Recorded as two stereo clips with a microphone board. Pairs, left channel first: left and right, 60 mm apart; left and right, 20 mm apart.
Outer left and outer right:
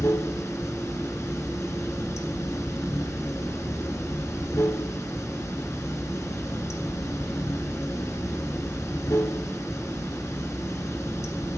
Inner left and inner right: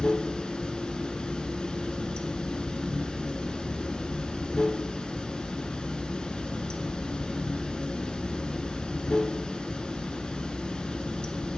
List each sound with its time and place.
0.0 s running water: 60° left (ahead or behind), 0.8 m